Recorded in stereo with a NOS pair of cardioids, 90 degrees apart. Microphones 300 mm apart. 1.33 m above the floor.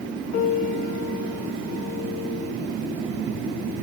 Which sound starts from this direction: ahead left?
A piano, at 0.3 s.